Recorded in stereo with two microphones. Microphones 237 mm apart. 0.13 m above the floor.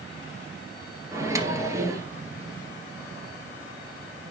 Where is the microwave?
15° right (ahead or behind), 1.8 m.